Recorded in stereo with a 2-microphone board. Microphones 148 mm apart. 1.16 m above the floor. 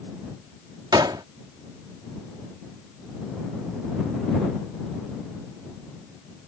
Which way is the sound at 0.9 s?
30° right (ahead or behind).